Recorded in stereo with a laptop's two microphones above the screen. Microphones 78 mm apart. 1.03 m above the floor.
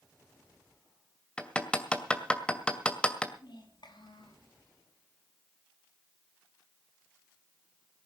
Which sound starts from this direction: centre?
Hammering, at 1.4 s.